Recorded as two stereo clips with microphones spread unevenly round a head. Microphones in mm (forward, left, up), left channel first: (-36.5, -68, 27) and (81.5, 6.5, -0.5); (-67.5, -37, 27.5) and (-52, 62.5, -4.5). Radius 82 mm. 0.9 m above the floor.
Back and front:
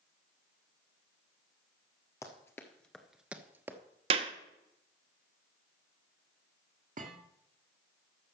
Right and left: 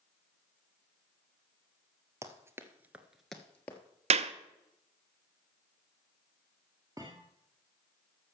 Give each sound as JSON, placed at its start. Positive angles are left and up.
{"t": 2.2, "sound": "running footsteps", "azimuth_deg": 155, "distance_m": 1.4}
{"t": 4.1, "sound": "a clap", "azimuth_deg": 90, "distance_m": 0.6}
{"t": 7.0, "sound": "a thud", "azimuth_deg": 5, "distance_m": 1.6}